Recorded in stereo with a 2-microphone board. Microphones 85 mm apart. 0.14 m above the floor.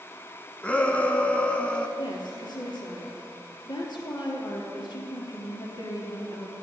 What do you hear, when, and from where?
0.6 s a shout: 15° left (ahead or behind), 1.0 m
2.0 s a woman speaking: 60° left (ahead or behind), 3 m